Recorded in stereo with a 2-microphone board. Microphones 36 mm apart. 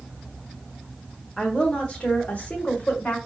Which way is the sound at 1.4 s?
25° left (ahead or behind).